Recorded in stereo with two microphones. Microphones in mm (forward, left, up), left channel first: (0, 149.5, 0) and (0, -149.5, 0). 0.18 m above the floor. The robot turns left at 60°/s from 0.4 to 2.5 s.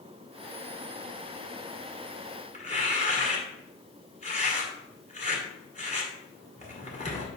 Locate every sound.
2.5 s tearing paper: 25° left (ahead or behind), 1.5 m